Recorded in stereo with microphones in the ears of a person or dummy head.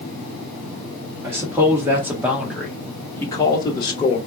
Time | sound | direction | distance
1.2 | a man speaking | 20° right (ahead or behind) | 1.2 m